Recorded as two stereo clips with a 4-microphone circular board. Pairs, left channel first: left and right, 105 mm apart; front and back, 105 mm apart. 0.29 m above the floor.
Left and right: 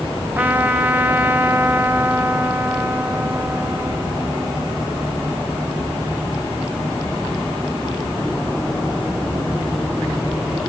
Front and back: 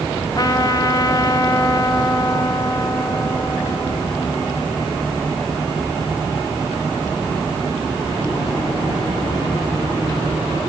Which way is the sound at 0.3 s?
25° right.